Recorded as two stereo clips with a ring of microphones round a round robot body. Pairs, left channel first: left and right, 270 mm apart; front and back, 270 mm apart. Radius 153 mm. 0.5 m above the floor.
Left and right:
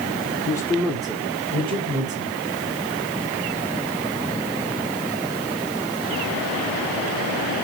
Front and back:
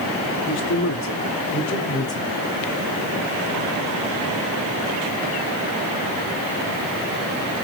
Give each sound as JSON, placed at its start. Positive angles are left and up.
{"t": 0.5, "sound": "a man speaking", "azimuth_deg": 20, "distance_m": 1.4}